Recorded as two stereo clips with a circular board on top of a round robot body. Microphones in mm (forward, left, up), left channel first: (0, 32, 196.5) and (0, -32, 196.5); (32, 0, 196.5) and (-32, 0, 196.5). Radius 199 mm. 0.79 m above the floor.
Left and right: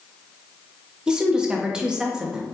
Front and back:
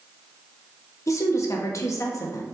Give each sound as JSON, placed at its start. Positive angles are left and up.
{"t": 1.1, "sound": "a woman speaking", "azimuth_deg": -15, "distance_m": 1.1}